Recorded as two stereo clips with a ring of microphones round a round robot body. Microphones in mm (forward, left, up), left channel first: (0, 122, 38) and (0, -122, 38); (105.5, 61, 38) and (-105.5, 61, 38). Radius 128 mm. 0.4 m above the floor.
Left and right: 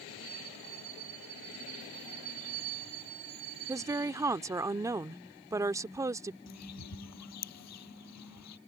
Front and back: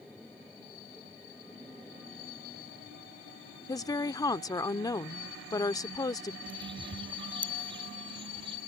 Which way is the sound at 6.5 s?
115° left.